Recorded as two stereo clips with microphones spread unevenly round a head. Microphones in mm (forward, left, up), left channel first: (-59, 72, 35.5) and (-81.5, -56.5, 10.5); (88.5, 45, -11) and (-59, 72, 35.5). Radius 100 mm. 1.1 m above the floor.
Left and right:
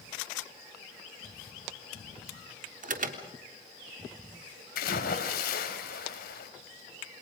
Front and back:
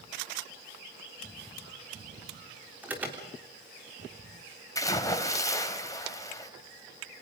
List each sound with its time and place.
2.8 s an alarm: 105° right, 3.5 m
4.8 s a splash: 60° left, 3.5 m